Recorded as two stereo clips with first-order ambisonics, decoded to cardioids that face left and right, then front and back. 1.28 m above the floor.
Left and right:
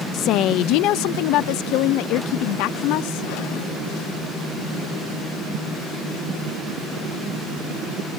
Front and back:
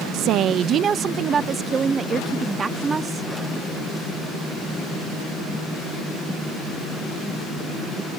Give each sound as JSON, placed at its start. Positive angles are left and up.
{"t": 0.1, "sound": "a woman speaking", "azimuth_deg": 140}